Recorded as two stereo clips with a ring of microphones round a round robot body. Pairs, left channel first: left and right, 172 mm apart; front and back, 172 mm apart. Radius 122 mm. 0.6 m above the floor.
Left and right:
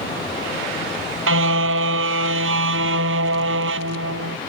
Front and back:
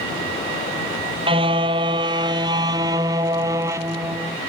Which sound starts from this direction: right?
A car horn, at 1.3 s.